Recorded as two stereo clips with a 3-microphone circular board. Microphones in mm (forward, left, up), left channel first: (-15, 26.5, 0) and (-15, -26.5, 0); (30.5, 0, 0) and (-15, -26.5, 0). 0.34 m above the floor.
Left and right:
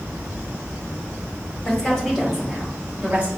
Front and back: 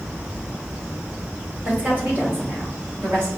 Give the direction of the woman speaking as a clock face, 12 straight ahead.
7 o'clock.